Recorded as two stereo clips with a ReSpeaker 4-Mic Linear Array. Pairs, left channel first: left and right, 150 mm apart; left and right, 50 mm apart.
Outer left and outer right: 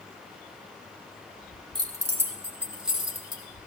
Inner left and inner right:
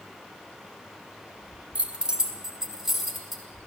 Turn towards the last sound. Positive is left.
turn(degrees=0)  # may be behind; listen again after turning